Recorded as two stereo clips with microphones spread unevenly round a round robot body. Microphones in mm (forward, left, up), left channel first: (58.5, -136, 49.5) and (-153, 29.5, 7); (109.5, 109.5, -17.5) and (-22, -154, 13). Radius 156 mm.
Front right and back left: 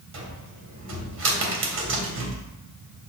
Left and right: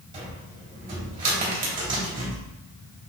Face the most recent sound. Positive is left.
turn(degrees=175)